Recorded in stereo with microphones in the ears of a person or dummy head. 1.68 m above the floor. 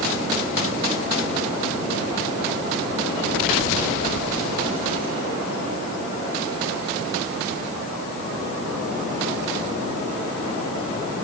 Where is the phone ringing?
No phone ringing in this recording.